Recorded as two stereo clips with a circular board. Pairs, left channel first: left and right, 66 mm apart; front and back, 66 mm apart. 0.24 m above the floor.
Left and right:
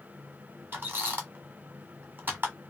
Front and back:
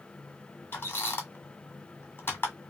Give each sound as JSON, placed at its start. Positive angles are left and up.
{"t": 0.7, "sound": "a squeak", "azimuth_deg": -40, "distance_m": 1.1}